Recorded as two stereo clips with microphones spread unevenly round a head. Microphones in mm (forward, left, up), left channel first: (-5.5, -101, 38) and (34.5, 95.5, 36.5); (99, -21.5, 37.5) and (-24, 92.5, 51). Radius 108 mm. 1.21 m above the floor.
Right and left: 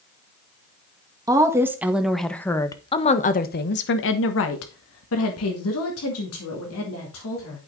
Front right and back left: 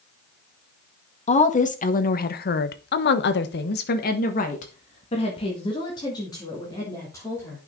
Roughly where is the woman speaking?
Ahead.